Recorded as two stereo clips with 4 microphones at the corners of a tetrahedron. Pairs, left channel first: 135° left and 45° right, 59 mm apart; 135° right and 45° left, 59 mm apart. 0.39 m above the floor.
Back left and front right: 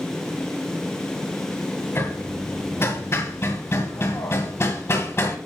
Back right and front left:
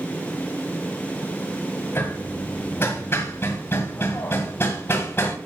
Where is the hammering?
Straight behind, 1.7 m.